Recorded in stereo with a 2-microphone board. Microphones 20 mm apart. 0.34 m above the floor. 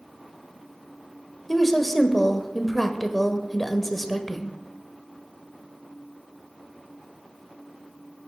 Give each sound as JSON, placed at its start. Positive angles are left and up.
{"t": 1.5, "sound": "a woman speaking", "side_deg": 10, "distance_m": 1.0}